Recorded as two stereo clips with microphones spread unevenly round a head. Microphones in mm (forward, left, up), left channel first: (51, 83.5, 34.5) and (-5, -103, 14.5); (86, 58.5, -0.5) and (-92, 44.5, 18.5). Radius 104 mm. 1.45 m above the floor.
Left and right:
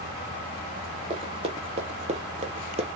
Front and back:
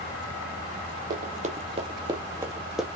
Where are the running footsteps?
170° right, 2.0 m; by 2.9 s 105° right, 1.5 m.